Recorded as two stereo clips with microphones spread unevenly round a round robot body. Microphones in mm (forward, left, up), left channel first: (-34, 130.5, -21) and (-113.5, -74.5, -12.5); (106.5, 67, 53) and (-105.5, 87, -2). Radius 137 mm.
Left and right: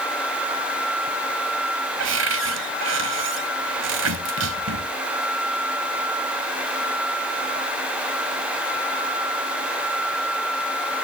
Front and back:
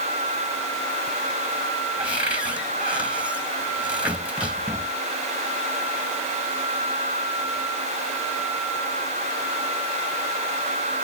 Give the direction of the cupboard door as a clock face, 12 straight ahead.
3 o'clock.